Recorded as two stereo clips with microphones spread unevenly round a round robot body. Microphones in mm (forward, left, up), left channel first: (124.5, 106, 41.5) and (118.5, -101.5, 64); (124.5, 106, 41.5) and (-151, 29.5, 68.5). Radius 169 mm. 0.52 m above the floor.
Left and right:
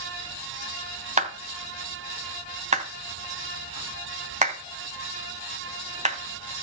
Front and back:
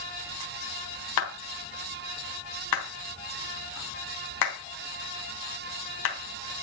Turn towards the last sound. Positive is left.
turn(degrees=-35)